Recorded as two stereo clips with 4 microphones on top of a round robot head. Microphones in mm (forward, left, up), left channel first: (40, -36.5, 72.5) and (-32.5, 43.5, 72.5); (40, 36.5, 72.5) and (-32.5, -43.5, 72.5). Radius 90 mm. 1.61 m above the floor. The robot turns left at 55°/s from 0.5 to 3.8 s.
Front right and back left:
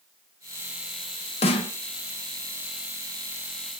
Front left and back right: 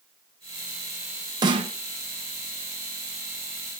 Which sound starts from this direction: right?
A snare drum, at 1.4 s.